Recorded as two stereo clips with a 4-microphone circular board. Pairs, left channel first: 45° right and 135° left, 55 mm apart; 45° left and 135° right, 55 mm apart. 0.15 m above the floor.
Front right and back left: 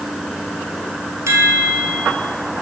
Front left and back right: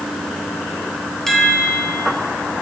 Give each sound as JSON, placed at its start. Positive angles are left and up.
{"t": 1.3, "sound": "a chime", "azimuth_deg": 130, "distance_m": 1.8}